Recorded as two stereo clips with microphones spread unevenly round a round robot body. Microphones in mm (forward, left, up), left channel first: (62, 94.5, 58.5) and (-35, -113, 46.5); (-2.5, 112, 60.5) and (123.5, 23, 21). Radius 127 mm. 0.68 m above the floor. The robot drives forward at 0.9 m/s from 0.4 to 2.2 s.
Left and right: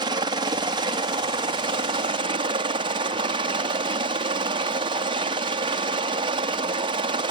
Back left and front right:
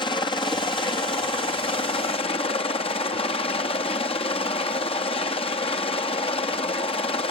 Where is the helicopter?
155° right; by 7.3 s 160° right.